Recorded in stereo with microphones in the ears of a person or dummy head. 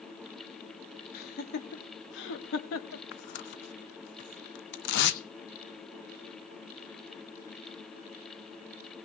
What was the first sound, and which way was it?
Laughter, 55° left (ahead or behind).